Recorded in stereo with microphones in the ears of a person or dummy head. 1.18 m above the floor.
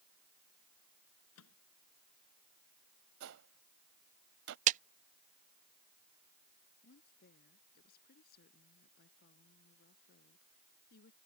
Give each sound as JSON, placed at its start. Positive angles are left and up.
{"t": 1.4, "sound": "a microwave", "side_deg": 90}
{"t": 3.2, "sound": "a gunshot", "side_deg": -65}
{"t": 4.7, "sound": "a clap", "side_deg": -40}
{"t": 6.8, "sound": "a woman speaking", "side_deg": 55}